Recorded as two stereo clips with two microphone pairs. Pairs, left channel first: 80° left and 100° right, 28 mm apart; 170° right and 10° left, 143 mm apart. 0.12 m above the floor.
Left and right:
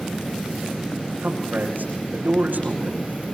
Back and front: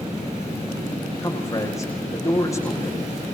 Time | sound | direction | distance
1.2 | a man speaking | 105° right | 7.5 m